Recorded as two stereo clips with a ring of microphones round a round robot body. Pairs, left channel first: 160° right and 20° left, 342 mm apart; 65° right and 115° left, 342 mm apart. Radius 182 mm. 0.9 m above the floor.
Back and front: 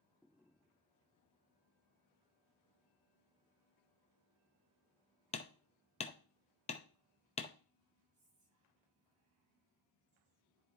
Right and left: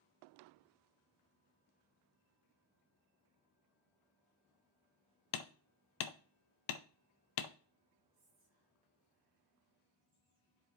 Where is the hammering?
85° right, 0.7 m.